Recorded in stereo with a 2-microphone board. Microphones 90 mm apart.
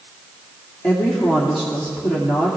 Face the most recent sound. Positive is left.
turn(degrees=5)  # may be behind; listen again after turning